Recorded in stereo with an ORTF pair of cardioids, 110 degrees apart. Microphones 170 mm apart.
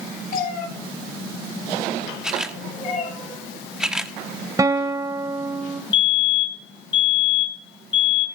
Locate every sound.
0.3 s a cat meowing: 55° left, 7.5 m; by 3.1 s 50° left, 9 m
2.2 s a camera shutter: 5° right, 1.5 m
4.6 s a guitar: 20° right, 2 m
5.9 s a fire alarm: 30° left, 4 m